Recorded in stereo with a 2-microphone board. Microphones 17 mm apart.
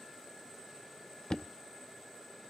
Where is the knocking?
60° left (ahead or behind), 0.6 m.